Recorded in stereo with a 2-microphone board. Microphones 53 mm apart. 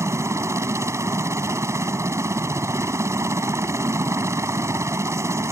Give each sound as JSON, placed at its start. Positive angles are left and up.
{"t": 0.0, "sound": "a helicopter", "side_deg": -65}